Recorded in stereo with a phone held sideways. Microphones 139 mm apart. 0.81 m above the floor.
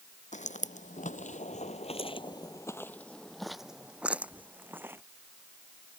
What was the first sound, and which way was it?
Footsteps, 60° left (ahead or behind).